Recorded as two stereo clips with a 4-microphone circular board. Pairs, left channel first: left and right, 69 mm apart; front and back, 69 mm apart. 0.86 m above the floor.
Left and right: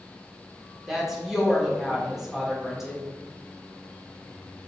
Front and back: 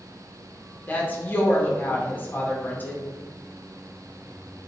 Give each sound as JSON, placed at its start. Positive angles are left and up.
{"t": 0.9, "sound": "a woman speaking", "azimuth_deg": -15, "distance_m": 0.8}